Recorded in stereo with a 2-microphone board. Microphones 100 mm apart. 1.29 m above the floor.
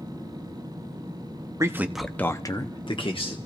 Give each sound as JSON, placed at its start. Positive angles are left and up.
{"t": 1.6, "sound": "a man speaking", "side_deg": -30, "distance_m": 0.8}